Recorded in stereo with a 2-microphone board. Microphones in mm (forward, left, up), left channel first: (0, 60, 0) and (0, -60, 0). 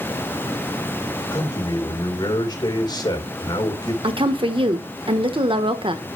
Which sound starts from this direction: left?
A man speaking, at 1.3 s.